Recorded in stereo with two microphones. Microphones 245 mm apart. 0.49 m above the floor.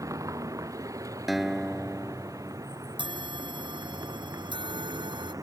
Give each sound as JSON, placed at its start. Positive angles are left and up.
{"t": 0.0, "sound": "a vehicle", "side_deg": -15}
{"t": 1.3, "sound": "a guitar", "side_deg": 0}
{"t": 3.0, "sound": "a bell", "side_deg": -20}